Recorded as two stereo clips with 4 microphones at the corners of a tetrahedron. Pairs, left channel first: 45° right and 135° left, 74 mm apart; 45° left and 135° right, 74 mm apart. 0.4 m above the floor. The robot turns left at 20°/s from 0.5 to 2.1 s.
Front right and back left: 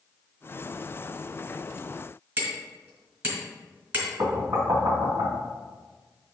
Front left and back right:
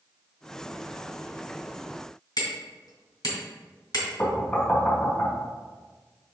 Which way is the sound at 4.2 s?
105° left.